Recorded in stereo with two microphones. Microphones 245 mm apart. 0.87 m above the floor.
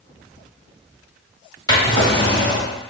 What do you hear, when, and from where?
1.7 s a drawer: 15° left (ahead or behind), 1.8 m